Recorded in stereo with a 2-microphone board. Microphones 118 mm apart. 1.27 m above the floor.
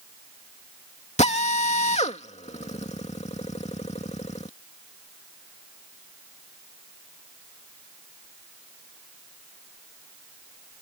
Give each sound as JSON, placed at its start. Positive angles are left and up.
{"t": 1.2, "sound": "a drill", "side_deg": 70}